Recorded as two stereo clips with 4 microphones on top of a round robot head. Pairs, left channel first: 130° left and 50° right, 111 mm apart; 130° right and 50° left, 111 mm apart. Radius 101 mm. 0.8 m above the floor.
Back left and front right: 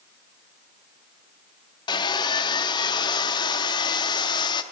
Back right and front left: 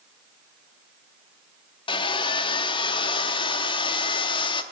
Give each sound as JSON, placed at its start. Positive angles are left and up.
{"t": 1.9, "sound": "sawing", "azimuth_deg": -175, "distance_m": 0.7}